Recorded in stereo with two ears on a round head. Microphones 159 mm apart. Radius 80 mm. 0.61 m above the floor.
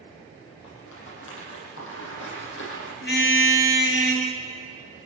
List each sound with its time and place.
0.6 s a rattle: 85° left, 9 m
3.0 s a car horn: 60° left (ahead or behind), 5.5 m